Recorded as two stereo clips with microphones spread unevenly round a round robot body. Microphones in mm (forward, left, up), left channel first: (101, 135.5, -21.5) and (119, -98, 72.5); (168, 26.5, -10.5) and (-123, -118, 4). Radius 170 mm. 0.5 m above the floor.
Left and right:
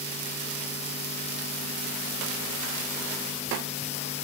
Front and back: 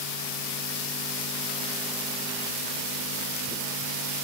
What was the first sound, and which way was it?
Only background noise.